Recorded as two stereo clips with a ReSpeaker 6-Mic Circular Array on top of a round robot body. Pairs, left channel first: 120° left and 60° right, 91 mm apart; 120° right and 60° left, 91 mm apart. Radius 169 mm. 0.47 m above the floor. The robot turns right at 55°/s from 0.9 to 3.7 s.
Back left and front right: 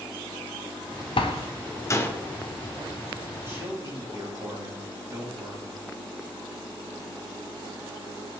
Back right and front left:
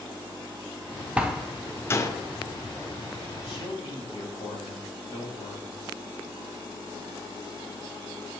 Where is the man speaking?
120° right, 4.5 m; by 5.8 s 105° right, 4.5 m.